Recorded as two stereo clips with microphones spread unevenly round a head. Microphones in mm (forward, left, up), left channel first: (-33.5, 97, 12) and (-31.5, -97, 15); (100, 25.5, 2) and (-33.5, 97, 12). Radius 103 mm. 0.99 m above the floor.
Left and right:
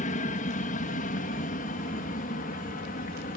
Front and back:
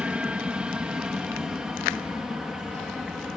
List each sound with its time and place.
0.0 s an aircraft: 70° left; by 3.4 s 65° left